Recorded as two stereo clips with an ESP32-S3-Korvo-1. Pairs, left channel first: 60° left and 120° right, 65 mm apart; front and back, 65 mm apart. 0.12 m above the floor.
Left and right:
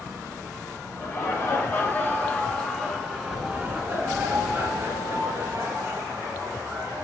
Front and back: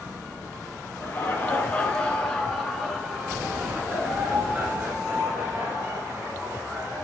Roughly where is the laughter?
Ahead left.